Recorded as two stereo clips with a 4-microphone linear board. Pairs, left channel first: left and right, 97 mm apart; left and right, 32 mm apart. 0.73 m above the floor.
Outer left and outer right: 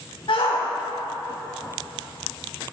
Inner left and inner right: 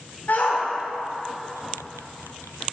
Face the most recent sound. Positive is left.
turn(degrees=65)  # may be behind; listen again after turning